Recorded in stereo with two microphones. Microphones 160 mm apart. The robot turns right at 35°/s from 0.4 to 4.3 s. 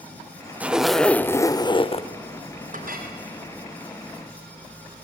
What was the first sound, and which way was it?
A zipper, 10° right.